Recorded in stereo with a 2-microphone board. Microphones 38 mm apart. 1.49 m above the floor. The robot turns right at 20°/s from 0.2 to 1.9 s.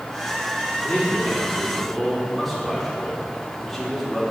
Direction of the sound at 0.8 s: 25° left (ahead or behind).